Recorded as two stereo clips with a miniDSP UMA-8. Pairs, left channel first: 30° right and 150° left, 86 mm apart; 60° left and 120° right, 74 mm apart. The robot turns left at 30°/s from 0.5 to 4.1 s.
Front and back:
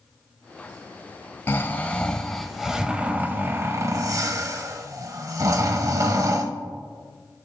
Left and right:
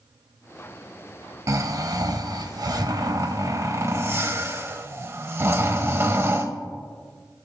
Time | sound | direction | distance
1.5 | snoring | 90° right | 0.7 m